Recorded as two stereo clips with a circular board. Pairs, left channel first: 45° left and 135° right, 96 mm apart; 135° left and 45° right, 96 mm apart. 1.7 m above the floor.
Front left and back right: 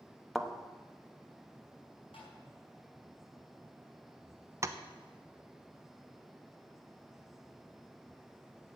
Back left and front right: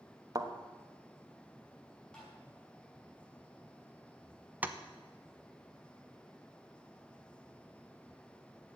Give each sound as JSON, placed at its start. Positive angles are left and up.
{"t": 0.3, "sound": "a thud", "azimuth_deg": -45, "distance_m": 1.2}
{"t": 2.1, "sound": "tapping", "azimuth_deg": 55, "distance_m": 5.5}
{"t": 4.6, "sound": "tapping", "azimuth_deg": -105, "distance_m": 0.8}